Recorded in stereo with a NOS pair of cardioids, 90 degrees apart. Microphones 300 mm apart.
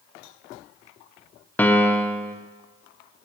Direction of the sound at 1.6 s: 5° left.